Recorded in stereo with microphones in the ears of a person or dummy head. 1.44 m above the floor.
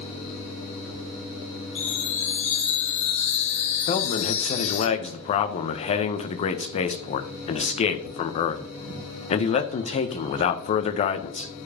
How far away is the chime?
About 2.5 m.